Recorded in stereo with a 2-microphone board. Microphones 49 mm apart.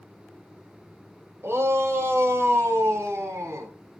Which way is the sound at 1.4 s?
60° right (ahead or behind).